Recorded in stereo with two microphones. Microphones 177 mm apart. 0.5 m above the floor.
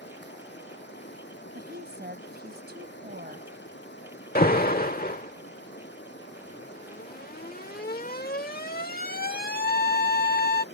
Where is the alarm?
60° left (ahead or behind).